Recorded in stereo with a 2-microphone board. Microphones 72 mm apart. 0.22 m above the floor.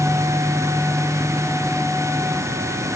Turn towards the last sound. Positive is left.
No sound to turn to.